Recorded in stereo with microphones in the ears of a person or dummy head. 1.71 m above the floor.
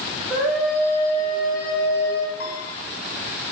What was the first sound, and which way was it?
A scream, 15° right (ahead or behind).